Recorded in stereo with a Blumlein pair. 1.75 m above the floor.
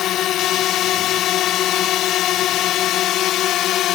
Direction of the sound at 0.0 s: 35° left.